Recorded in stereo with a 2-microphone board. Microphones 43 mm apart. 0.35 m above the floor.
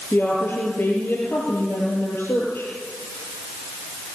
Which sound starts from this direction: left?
A woman speaking, at 0.1 s.